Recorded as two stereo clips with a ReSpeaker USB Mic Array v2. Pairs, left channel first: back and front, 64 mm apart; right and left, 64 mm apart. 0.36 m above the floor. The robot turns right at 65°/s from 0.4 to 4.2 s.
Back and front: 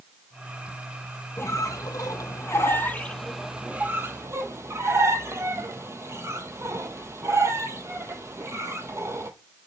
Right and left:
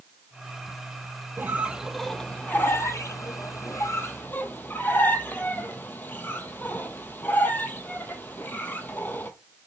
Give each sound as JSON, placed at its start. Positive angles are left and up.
{"t": 1.4, "sound": "a squeak", "azimuth_deg": 140, "distance_m": 0.6}